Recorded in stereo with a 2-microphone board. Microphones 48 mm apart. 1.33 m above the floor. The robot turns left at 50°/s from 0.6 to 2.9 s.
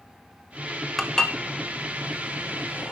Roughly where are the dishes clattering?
Centre.